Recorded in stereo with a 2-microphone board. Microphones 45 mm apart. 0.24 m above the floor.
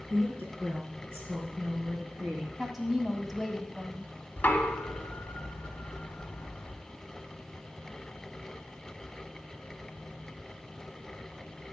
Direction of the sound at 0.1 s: 60° right (ahead or behind).